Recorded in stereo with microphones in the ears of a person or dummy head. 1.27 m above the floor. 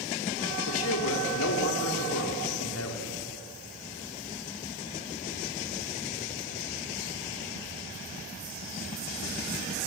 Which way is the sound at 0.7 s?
75° left (ahead or behind).